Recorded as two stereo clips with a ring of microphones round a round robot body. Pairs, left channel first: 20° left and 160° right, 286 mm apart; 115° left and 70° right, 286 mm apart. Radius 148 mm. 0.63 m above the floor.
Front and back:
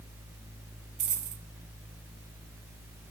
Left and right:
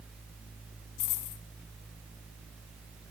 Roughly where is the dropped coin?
Behind left.